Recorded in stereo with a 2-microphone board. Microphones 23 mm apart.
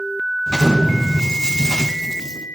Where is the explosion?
30° right (ahead or behind), 4.5 m.